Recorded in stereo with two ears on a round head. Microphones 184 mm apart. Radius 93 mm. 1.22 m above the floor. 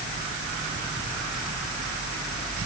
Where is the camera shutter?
I don't hear a camera shutter.